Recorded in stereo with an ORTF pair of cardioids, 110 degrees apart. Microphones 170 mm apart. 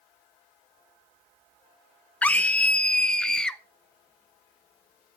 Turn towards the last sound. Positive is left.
turn(degrees=5)